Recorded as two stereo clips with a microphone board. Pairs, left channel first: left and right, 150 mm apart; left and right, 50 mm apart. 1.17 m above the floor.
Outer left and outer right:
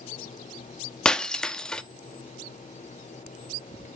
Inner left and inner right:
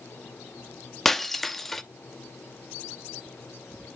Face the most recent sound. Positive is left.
turn(degrees=5)  # may be behind; listen again after turning